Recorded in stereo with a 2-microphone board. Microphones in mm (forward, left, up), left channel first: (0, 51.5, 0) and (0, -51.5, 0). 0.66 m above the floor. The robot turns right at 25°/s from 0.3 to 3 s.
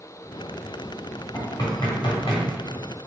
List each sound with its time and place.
1.3 s knocking: 35° left (ahead or behind), 1.4 m; by 2.5 s 60° left (ahead or behind), 1.4 m